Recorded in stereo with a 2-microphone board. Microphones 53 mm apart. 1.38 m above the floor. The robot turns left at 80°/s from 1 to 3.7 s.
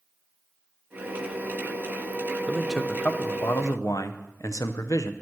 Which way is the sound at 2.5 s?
165° right.